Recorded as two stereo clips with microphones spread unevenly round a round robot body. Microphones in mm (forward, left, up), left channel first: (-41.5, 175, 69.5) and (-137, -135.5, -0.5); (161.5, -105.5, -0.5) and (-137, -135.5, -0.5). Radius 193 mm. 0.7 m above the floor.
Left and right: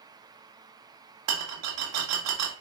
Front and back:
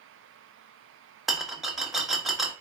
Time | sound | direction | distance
1.3 | a rattle | 85° right | 1.4 m